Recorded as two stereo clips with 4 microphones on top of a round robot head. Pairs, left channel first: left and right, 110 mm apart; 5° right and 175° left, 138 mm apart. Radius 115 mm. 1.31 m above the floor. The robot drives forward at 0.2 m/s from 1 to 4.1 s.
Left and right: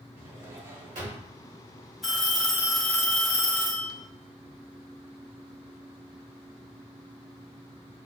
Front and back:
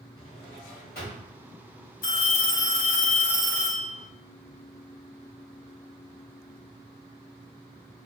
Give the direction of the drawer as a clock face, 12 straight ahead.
3 o'clock.